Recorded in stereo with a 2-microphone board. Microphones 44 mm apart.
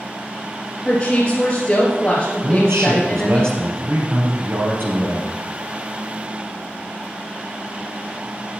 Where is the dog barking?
I don't hear a dog barking.